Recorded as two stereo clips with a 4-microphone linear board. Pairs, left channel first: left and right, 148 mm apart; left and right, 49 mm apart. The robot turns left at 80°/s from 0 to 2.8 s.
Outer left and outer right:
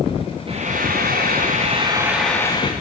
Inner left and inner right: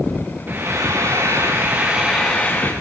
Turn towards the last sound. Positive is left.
turn(degrees=135)